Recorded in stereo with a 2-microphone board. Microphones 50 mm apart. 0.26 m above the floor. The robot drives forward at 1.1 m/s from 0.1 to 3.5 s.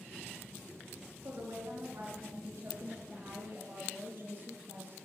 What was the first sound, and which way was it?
A woman speaking, 70° right (ahead or behind).